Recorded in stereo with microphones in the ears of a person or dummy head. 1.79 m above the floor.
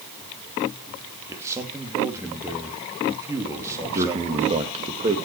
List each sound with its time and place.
1.3 s a man speaking: 15° right (ahead or behind), 2.5 m
3.9 s a man speaking: 30° right (ahead or behind), 2.5 m